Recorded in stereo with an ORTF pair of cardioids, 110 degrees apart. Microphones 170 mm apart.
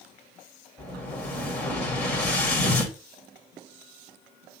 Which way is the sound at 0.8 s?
5° left.